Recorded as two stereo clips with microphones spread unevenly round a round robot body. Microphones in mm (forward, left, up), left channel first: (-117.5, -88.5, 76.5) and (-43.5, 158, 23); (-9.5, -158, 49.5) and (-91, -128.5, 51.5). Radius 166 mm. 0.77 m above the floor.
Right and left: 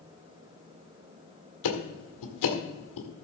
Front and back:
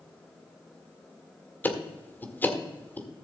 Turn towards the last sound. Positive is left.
turn(degrees=-90)